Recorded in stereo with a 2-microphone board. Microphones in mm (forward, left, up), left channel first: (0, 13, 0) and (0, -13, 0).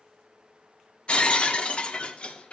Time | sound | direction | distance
1.1 | breaking glass | 45° left (ahead or behind) | 0.7 m